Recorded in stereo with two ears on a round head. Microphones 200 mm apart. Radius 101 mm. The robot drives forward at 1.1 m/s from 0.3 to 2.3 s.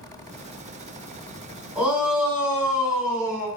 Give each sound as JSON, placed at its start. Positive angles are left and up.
{"t": 1.8, "sound": "a shout", "side_deg": -10, "distance_m": 3.5}